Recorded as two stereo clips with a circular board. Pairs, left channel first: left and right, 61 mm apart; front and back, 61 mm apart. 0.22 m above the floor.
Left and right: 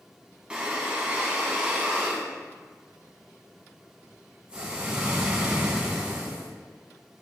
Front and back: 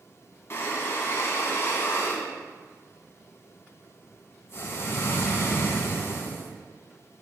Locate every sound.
0.5 s breathing: 25° right, 1.0 m